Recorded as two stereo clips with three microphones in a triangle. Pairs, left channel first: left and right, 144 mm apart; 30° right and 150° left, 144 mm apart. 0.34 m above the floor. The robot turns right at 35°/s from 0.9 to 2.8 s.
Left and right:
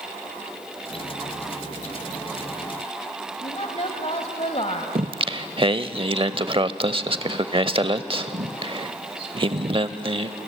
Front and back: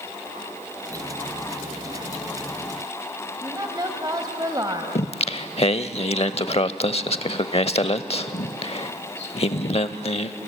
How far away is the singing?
About 0.7 m.